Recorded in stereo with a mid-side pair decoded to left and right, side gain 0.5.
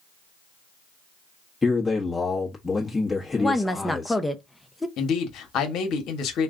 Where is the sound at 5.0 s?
65° left, 1.2 m.